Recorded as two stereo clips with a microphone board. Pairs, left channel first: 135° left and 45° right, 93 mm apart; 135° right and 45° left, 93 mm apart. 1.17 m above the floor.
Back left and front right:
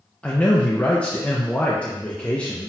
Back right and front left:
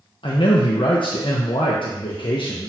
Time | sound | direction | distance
0.2 | a man speaking | 150° right | 0.5 m